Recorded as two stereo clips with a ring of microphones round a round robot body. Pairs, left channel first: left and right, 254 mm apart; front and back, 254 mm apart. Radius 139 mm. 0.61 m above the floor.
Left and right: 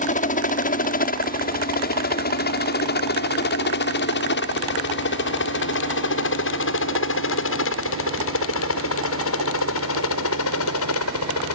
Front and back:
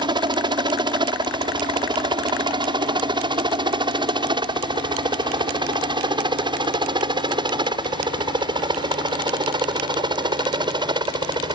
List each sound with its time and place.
0.0 s a helicopter: 125° left; by 11.6 s 110° left